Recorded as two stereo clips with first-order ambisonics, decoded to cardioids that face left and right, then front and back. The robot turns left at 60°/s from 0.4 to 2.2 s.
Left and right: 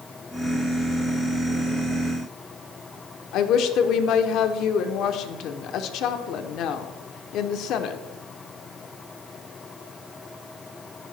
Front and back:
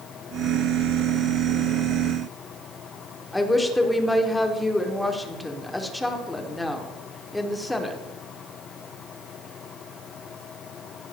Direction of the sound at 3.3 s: 80° left.